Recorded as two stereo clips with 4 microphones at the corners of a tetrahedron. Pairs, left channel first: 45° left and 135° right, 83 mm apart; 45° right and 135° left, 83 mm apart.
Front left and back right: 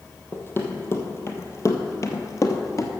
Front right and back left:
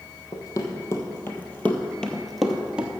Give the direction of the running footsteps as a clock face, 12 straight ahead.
12 o'clock.